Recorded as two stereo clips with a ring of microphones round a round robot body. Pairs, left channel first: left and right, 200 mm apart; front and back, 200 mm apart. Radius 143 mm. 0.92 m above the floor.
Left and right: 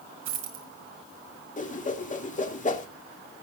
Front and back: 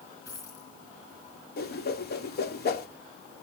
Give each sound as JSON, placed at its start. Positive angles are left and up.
{"t": 0.2, "sound": "a dropped coin", "azimuth_deg": -80, "distance_m": 3.5}
{"t": 1.6, "sound": "a whoosh", "azimuth_deg": 40, "distance_m": 2.5}